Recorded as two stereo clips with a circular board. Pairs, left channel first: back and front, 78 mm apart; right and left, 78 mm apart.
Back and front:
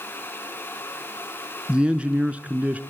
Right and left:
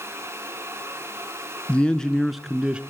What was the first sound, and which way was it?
A man speaking, 50° right.